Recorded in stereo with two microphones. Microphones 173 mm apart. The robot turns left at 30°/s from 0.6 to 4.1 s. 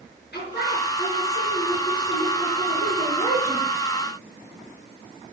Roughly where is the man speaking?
Left.